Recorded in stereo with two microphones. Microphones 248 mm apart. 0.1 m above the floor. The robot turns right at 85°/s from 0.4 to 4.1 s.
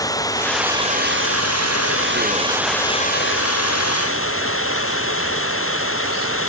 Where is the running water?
165° left; by 6.5 s 120° left.